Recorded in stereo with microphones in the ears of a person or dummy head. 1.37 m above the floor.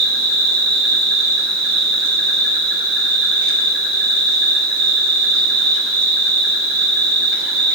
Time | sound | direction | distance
0.0 | an insect | 50° right (ahead or behind) | 2.5 m